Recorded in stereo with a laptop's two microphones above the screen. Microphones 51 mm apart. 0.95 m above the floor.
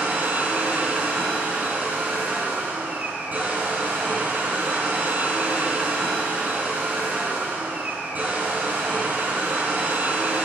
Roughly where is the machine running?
Right.